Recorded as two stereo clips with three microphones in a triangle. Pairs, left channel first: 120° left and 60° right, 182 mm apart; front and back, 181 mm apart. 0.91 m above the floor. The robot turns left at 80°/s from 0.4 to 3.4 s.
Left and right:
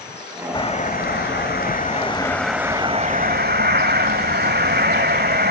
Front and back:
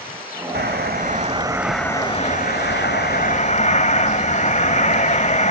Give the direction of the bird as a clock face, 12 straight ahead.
6 o'clock.